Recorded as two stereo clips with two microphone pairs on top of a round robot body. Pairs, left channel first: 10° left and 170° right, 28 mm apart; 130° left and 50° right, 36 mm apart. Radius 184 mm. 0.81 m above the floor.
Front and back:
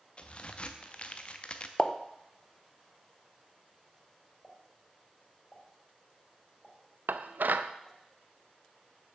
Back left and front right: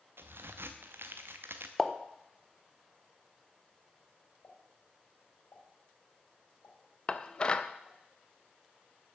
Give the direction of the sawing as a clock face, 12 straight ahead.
No sawing in this recording.